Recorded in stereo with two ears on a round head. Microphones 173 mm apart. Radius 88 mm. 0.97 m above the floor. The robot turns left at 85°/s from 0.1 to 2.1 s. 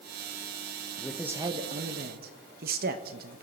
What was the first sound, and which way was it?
A man speaking, 15° left.